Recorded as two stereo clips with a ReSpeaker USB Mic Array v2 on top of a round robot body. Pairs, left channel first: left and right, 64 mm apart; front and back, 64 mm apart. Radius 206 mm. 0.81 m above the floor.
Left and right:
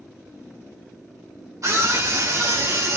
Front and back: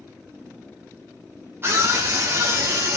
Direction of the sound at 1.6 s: 125° right.